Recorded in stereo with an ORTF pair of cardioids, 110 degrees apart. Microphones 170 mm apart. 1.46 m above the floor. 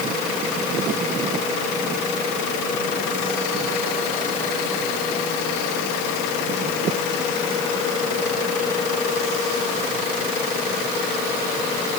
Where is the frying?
I don't hear frying.